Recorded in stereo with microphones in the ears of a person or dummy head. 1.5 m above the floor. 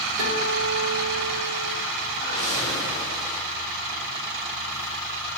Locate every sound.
0.2 s a guitar: 80° right, 5 m
2.1 s a whoosh: 85° right, 4 m